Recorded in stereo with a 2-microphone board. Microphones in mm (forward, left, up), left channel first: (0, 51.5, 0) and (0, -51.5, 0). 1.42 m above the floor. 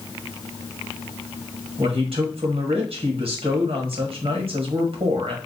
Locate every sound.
1.8 s a man speaking: 65° right (ahead or behind), 1.4 m